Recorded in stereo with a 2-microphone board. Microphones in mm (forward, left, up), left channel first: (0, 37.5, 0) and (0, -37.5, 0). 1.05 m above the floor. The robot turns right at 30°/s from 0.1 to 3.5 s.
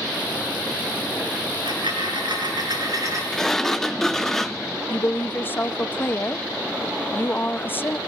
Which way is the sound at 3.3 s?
5° left (ahead or behind).